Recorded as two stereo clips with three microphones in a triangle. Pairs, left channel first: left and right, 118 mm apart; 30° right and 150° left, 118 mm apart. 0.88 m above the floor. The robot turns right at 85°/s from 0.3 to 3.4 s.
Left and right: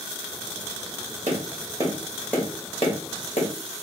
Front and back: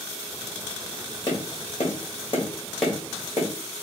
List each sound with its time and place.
1.3 s tapping: 80° right, 1.4 m; by 3.5 s 105° left, 1.4 m